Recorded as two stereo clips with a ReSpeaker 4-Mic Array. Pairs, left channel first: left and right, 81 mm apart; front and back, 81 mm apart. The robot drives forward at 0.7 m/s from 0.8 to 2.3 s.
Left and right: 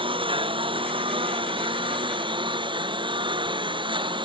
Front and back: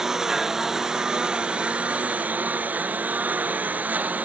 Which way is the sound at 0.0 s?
95° right.